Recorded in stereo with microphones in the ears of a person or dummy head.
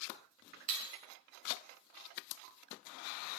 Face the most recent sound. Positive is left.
turn(degrees=-35)  # may be behind; listen again after turning